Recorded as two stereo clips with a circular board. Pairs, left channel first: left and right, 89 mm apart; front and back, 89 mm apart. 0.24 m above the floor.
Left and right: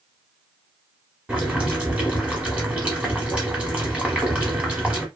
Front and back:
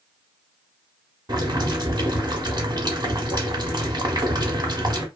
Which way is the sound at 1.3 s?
165° right.